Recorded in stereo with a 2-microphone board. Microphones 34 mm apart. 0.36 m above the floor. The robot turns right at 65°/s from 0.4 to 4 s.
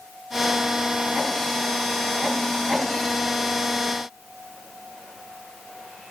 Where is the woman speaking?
I don't hear a woman speaking.